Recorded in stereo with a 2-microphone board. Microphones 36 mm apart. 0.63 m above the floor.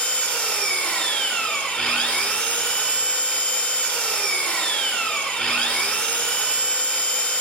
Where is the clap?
No clap in this recording.